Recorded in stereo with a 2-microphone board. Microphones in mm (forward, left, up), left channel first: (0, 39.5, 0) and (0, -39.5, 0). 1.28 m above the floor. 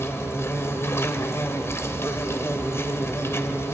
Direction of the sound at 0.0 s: 35° left (ahead or behind).